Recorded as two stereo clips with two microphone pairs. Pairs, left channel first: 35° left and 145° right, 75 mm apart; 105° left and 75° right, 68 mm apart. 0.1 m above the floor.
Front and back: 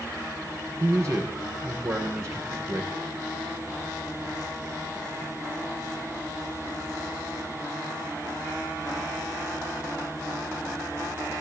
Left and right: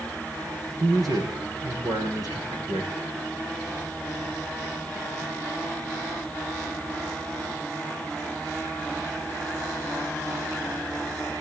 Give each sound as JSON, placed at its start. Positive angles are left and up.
{"t": 0.8, "sound": "a man speaking", "azimuth_deg": -95, "distance_m": 8.0}